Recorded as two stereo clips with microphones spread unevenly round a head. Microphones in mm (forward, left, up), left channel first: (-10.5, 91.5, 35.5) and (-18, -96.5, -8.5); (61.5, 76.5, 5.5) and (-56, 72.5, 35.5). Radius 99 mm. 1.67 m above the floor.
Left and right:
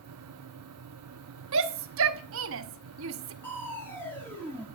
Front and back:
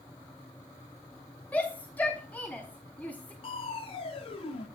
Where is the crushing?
35° left, 1.1 m.